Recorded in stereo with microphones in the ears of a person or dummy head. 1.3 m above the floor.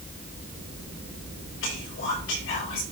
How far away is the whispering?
About 4.5 m.